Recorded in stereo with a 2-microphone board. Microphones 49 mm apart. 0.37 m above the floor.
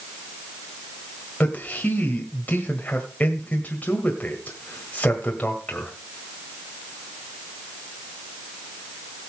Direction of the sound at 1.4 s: 35° left (ahead or behind).